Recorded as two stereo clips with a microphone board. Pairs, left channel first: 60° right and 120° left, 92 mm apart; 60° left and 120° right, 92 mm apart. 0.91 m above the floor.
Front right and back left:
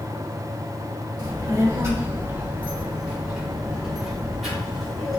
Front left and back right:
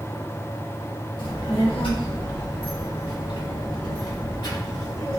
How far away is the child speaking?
About 1.3 m.